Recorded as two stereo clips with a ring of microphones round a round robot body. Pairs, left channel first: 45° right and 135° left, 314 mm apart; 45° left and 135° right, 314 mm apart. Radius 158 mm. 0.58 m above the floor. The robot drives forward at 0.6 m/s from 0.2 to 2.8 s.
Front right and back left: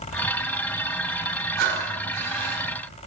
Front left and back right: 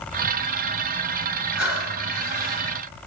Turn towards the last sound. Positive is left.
turn(degrees=145)